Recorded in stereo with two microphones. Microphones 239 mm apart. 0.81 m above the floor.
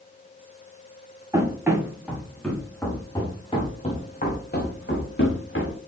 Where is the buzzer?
I don't hear a buzzer.